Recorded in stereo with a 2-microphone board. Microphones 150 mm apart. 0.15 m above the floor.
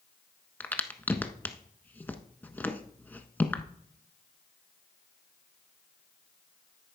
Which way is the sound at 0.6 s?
15° left (ahead or behind).